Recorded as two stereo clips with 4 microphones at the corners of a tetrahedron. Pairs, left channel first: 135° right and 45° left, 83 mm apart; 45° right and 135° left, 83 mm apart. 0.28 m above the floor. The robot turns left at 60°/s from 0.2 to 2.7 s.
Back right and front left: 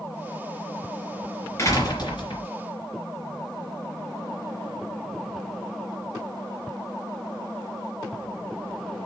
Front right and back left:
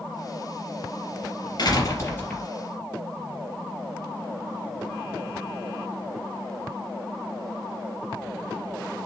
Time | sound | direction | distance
1.6 | a door slam | 80° right | 3.5 m